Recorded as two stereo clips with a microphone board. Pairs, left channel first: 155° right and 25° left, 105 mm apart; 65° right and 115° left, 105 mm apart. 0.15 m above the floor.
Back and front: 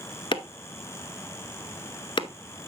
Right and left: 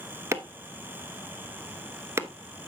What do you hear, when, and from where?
0.3 s chopping: 175° left, 0.8 m